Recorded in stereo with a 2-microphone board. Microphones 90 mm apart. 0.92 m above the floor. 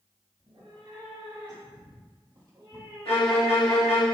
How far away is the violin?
About 1.9 m.